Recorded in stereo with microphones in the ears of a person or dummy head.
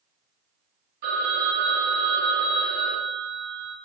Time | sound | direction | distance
1.0 | a phone ringing | 45° right (ahead or behind) | 0.8 m